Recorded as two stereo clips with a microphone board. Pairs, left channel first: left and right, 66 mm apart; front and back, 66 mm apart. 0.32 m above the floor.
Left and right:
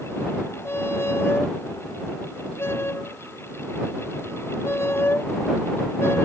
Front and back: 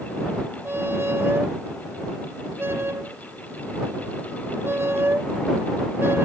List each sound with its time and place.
0.7 s a squeak: 135° left